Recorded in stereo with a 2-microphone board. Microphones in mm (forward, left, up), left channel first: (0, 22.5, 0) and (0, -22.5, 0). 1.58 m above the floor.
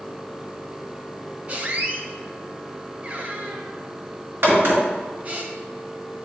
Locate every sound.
1.5 s a squeak: 30° right (ahead or behind), 0.9 m
4.4 s a crack: 55° right (ahead or behind), 2 m